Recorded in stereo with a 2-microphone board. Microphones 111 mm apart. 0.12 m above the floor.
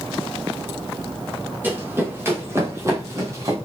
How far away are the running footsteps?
About 4.5 m.